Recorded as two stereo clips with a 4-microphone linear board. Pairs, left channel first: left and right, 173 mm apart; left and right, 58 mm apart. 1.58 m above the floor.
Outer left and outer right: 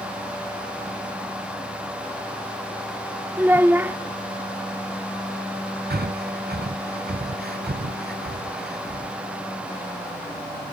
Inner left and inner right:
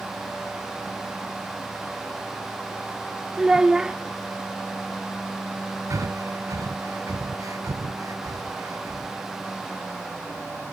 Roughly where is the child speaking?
Centre.